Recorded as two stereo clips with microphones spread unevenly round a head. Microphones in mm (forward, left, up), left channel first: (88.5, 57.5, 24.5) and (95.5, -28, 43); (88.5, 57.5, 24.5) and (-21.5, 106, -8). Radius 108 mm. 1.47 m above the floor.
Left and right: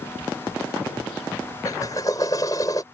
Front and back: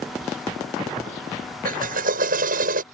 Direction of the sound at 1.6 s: 170° left.